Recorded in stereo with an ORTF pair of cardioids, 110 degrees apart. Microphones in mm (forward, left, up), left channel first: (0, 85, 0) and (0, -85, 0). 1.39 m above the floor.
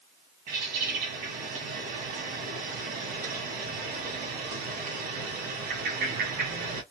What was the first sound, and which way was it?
A bird, 60° right.